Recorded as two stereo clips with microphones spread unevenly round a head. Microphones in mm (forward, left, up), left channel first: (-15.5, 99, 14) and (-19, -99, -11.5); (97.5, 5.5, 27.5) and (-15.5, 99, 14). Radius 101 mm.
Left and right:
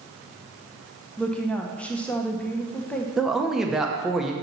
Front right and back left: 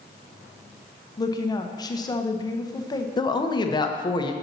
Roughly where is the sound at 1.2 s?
Ahead.